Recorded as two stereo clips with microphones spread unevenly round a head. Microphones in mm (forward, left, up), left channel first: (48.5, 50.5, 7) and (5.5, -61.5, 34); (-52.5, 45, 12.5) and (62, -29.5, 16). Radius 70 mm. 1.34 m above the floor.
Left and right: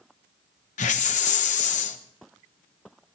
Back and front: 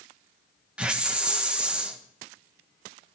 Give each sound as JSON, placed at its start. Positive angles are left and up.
{"t": 0.8, "sound": "a hiss", "azimuth_deg": 50, "distance_m": 1.3}